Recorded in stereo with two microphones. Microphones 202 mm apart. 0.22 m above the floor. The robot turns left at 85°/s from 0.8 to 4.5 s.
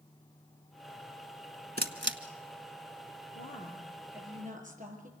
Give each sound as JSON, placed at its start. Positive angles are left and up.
{"t": 1.8, "sound": "a camera shutter", "side_deg": -50, "distance_m": 1.2}
{"t": 3.4, "sound": "a woman speaking", "azimuth_deg": 55, "distance_m": 5.5}